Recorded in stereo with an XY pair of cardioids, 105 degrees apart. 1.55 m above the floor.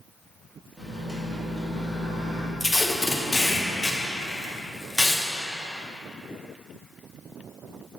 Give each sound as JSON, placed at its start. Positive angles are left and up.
{"t": 0.8, "sound": "a microwave", "azimuth_deg": -10, "distance_m": 2.5}
{"t": 2.6, "sound": "tape being pulled", "azimuth_deg": 5, "distance_m": 1.0}